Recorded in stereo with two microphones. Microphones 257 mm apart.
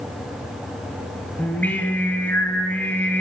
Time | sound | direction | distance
1.4 | singing | 5° left (ahead or behind) | 1.5 m